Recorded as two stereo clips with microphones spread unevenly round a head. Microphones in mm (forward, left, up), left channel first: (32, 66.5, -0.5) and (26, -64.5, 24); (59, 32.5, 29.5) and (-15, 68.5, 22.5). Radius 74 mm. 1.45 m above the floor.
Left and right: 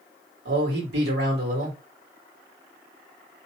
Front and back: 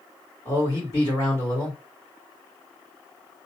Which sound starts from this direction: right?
A man speaking, at 0.5 s.